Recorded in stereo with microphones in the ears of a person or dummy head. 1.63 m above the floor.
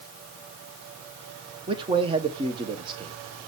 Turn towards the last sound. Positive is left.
turn(degrees=-25)  # may be behind; listen again after turning